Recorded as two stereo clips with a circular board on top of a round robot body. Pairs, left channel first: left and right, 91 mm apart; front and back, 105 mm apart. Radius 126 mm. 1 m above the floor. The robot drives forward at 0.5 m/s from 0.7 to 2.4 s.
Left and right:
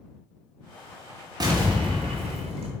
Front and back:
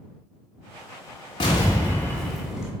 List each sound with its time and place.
1.4 s an explosion: 45° right, 0.7 m; by 2.7 s 95° right, 0.5 m